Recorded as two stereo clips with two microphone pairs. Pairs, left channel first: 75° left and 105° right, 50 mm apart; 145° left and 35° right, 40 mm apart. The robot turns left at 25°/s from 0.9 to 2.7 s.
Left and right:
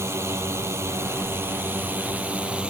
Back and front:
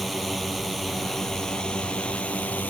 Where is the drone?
125° right; by 2.7 s 170° right.